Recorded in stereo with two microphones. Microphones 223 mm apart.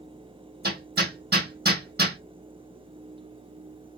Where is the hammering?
45° right (ahead or behind), 1.5 m.